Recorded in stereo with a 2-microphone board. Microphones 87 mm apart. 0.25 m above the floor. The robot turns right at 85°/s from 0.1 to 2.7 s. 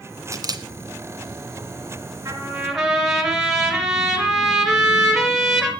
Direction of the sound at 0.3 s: 40° right (ahead or behind).